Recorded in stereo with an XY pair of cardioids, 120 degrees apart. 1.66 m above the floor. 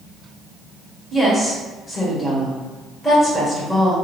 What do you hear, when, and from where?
1.1 s a woman speaking: 10° left, 1.8 m